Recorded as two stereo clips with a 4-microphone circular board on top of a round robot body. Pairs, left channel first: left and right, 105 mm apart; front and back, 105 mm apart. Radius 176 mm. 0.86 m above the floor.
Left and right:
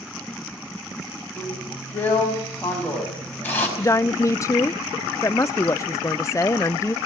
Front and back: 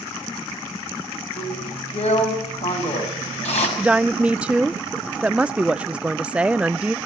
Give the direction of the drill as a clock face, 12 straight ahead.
11 o'clock.